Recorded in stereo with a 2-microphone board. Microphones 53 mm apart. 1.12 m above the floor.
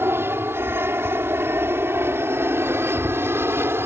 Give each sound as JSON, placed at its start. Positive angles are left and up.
{"t": 0.0, "sound": "an aircraft", "side_deg": -45}